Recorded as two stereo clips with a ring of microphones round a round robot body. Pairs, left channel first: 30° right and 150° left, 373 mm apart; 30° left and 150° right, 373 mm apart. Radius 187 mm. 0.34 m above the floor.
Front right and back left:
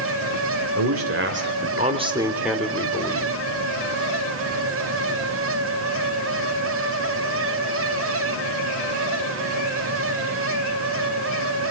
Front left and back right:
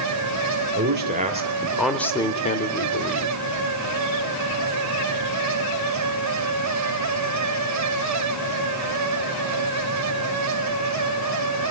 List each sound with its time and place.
0.8 s a man speaking: 170° left, 1.8 m; by 3.4 s 35° left, 1.8 m